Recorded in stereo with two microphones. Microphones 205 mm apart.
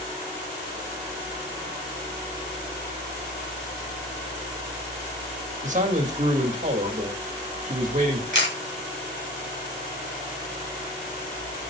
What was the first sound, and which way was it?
A man speaking, 40° right (ahead or behind).